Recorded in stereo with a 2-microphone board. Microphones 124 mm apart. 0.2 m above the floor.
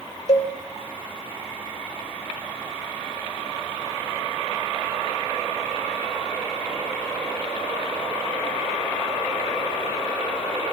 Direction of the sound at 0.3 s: 55° left (ahead or behind).